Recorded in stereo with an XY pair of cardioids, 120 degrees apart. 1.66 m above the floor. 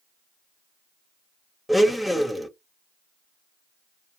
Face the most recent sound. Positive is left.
turn(degrees=5)